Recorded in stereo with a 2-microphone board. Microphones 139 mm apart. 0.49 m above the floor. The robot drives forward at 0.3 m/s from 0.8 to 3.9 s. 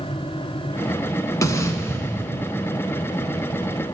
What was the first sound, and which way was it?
An explosion, 25° left (ahead or behind).